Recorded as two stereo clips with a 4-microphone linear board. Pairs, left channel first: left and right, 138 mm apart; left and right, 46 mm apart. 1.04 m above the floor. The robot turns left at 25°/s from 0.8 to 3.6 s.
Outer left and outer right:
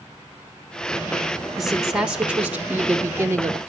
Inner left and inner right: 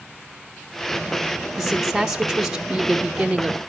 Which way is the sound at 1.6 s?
Centre (ahead or behind).